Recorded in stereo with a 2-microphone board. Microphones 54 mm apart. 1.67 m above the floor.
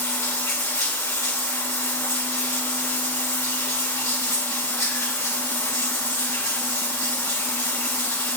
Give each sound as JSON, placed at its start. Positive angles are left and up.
{"t": 0.0, "sound": "running water", "side_deg": 70, "distance_m": 3.5}